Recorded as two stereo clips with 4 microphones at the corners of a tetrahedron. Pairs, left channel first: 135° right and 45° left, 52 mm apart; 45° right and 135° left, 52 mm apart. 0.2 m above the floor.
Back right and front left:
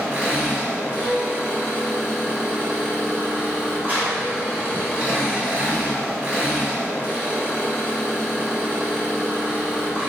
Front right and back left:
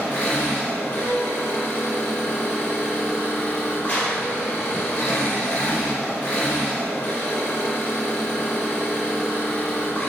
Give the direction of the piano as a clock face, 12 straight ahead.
7 o'clock.